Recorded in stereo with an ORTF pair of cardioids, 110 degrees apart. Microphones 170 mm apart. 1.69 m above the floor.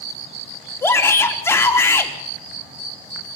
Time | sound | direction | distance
0.8 | a shout | 15° left | 3.5 m